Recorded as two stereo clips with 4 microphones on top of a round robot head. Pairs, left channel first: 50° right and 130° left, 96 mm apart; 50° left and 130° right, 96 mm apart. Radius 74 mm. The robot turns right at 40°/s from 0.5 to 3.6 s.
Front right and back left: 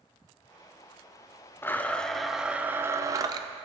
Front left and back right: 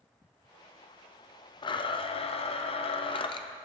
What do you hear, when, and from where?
1.6 s a blender: 15° left, 0.5 m; by 3.5 s 90° left, 0.5 m